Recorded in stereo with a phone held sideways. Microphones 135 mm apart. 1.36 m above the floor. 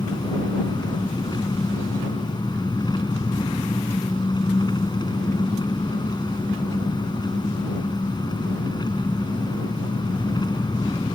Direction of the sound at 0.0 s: 30° left (ahead or behind).